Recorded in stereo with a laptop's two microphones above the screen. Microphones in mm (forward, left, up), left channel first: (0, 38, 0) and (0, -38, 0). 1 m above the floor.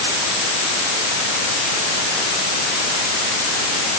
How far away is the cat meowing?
No cat meowing in this recording.